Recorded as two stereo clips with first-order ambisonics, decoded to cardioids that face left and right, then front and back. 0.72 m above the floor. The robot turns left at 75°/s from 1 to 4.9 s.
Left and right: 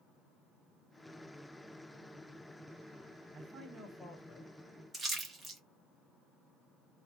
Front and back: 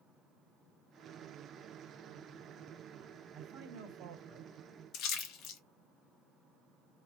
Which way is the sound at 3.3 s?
135° right.